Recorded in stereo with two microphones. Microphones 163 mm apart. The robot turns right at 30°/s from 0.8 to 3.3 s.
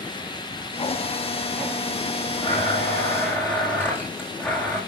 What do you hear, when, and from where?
2.4 s a blender: 40° left (ahead or behind), 8 m; by 4.8 s 10° left (ahead or behind), 8 m